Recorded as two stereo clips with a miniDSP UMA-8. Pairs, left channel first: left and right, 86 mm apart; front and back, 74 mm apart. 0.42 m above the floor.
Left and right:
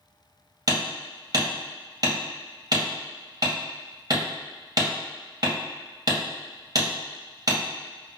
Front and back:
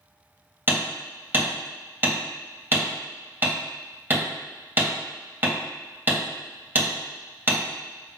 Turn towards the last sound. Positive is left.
turn(degrees=-120)